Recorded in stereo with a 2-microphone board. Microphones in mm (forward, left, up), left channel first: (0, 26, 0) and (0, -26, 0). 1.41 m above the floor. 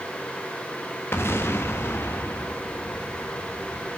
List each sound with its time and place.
1.1 s an explosion: 50° left (ahead or behind), 1.2 m